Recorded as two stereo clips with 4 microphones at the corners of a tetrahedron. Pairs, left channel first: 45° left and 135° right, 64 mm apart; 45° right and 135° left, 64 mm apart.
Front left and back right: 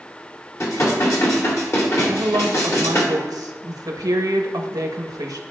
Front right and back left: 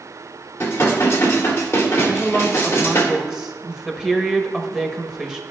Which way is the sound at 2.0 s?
145° right.